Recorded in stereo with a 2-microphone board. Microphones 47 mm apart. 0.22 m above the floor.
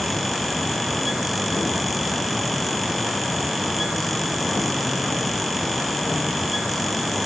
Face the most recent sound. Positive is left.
No sound to turn to.